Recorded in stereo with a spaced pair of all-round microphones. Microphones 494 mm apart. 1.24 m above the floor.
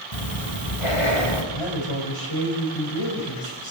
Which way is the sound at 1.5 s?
70° left (ahead or behind).